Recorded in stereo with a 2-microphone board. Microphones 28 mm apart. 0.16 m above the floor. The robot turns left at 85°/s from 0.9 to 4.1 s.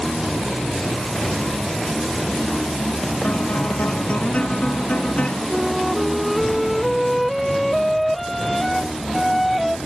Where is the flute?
Centre (ahead or behind).